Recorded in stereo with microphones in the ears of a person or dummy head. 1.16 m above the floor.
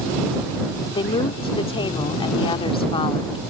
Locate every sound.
0.9 s a woman speaking: 30° left (ahead or behind)